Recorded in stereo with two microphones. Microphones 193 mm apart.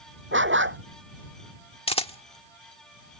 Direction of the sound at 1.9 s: 30° left (ahead or behind).